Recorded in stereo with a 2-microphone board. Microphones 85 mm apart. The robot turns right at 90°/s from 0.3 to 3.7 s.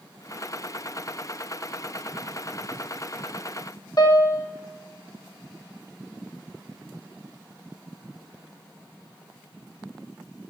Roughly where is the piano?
Left.